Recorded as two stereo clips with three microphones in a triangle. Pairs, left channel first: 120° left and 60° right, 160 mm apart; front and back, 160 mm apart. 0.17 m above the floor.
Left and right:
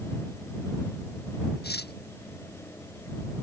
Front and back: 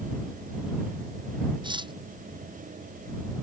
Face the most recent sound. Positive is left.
turn(degrees=120)